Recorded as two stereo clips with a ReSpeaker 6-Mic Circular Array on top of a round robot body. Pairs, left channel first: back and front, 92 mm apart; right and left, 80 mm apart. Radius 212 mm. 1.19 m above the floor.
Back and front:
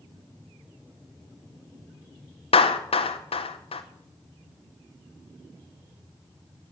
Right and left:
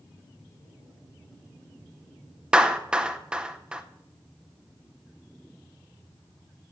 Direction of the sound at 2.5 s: 170° left.